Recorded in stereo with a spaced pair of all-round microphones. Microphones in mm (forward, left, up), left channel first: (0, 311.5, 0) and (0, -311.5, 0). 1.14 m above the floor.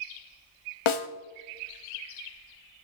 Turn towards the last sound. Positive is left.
turn(degrees=50)  # may be behind; listen again after turning